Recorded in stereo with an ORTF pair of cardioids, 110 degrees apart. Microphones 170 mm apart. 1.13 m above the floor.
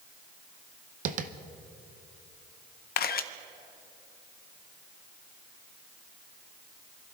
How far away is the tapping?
About 0.7 m.